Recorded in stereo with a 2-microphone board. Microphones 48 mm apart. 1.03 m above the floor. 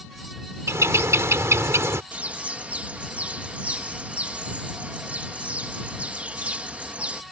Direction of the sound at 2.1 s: 30° right (ahead or behind).